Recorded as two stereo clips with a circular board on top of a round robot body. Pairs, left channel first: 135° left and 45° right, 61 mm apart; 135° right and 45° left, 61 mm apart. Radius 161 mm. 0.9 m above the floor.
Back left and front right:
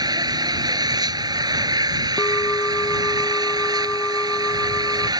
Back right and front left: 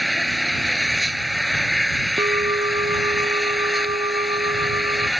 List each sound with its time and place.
0.0 s an engine running: 45° right
2.2 s a bell: 65° left